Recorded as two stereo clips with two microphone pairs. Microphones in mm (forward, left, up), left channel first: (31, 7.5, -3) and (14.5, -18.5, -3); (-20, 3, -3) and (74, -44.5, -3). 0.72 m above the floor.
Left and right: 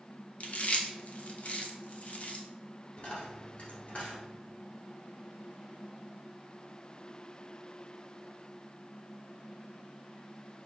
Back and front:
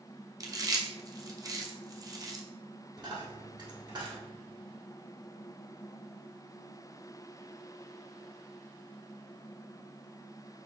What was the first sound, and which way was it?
Chewing, 20° left.